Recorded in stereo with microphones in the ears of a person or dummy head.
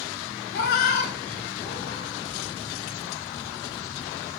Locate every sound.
0.5 s a cat meowing: 55° left (ahead or behind), 0.9 m; by 2.1 s 60° left (ahead or behind), 1.6 m